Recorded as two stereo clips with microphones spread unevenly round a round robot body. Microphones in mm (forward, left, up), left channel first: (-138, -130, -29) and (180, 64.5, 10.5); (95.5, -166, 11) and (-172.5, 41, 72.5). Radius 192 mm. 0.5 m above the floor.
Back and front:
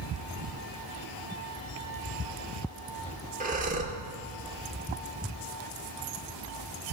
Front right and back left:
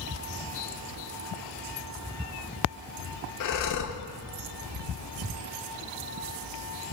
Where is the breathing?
40° right, 0.6 m.